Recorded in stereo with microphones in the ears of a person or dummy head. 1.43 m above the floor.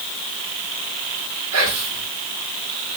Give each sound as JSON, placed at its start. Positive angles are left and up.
{"t": 1.5, "sound": "whispering", "side_deg": -80, "distance_m": 1.3}